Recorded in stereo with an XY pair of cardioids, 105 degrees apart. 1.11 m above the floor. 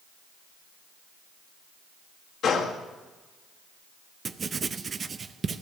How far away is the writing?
About 0.6 m.